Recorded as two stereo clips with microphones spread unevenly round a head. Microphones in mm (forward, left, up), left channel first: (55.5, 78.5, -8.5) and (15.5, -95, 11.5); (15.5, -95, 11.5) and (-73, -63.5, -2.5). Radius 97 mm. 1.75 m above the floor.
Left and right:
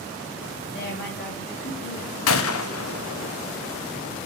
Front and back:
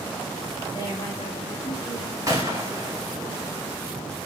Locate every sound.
0.7 s a woman speaking: 45° left, 2.5 m; by 2.9 s 35° left, 4 m
2.3 s a gunshot: 85° left, 0.7 m